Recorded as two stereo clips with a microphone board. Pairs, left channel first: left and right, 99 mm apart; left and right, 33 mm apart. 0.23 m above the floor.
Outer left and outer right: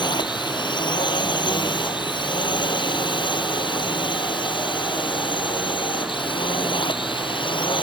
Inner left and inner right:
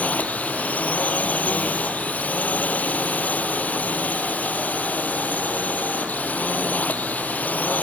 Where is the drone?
50° left (ahead or behind); by 7.8 s 55° left (ahead or behind).